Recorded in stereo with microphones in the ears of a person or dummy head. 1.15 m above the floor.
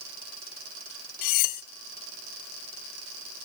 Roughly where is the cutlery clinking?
Left.